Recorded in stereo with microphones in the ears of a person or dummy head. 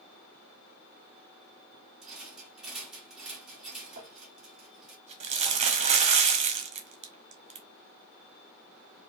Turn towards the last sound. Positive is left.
turn(degrees=-45)  # may be behind; listen again after turning